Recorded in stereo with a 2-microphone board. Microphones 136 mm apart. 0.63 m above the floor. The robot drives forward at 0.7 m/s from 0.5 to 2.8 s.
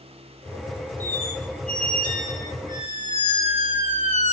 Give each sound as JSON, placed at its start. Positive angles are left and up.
{"t": 1.0, "sound": "a squeak", "side_deg": 80, "distance_m": 2.0}